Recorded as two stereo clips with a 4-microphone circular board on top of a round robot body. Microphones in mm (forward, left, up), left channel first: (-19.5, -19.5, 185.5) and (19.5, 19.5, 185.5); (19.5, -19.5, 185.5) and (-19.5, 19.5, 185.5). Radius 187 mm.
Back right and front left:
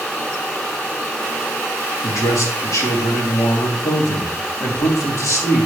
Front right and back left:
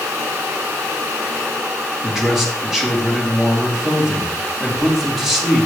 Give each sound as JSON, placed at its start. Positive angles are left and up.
{"t": 2.0, "sound": "a man speaking", "azimuth_deg": -145, "distance_m": 2.5}